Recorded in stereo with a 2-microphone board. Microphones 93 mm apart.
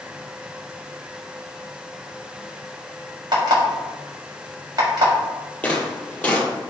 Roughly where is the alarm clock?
Right.